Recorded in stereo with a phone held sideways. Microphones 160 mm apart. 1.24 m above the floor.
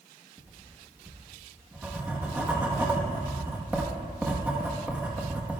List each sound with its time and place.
0.4 s writing: 10° right (ahead or behind), 1.4 m